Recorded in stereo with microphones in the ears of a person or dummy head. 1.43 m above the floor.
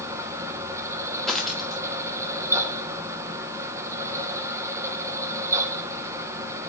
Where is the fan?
10° right (ahead or behind), 1.3 m.